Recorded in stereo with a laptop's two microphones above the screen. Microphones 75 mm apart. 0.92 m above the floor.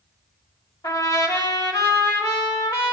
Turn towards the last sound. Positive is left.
turn(degrees=60)  # may be behind; listen again after turning